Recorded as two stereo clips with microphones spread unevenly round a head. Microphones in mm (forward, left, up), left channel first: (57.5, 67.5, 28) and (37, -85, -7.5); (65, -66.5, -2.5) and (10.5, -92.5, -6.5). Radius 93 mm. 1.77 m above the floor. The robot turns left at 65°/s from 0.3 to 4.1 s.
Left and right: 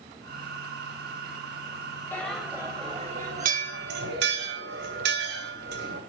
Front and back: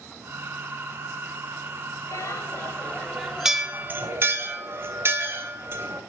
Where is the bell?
15° left, 3 m; by 6.0 s 115° right, 3 m.